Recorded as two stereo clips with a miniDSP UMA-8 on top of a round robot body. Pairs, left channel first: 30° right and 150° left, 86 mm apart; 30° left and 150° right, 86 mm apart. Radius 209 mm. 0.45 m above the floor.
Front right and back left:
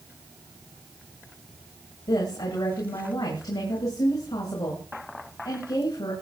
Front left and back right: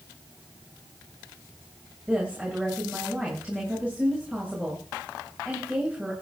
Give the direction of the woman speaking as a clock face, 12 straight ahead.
2 o'clock.